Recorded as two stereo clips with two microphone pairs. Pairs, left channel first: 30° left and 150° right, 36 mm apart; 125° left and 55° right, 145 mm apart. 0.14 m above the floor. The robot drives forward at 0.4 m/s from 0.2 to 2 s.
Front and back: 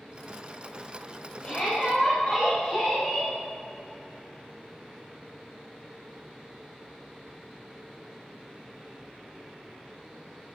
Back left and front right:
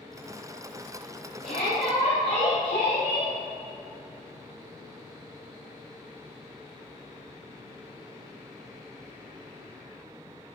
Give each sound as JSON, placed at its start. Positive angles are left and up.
{"t": 1.4, "sound": "a shout", "azimuth_deg": 110, "distance_m": 4.0}